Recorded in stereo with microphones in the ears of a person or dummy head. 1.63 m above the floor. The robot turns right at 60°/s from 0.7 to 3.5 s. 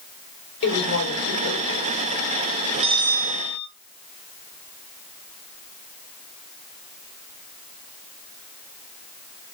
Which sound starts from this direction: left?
A woman speaking, at 0.6 s.